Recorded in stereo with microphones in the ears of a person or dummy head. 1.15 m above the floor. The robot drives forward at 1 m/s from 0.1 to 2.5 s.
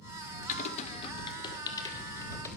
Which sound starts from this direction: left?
Typing on a keyboard, at 0.5 s.